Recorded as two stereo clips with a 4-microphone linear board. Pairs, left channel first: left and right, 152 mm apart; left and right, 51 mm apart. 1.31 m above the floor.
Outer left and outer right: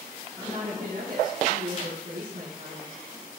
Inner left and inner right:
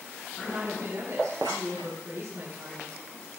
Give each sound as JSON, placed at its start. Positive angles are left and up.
{"t": 0.4, "sound": "a woman speaking", "side_deg": -80, "distance_m": 8.5}